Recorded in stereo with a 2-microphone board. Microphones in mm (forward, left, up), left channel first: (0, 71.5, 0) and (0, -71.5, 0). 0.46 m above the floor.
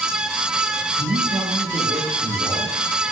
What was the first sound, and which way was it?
A man speaking, 55° right (ahead or behind).